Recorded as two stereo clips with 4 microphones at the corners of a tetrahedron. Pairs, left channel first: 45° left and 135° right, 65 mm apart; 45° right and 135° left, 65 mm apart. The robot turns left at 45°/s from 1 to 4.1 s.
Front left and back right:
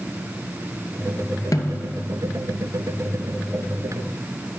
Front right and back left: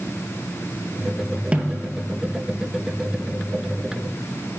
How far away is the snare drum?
About 0.8 m.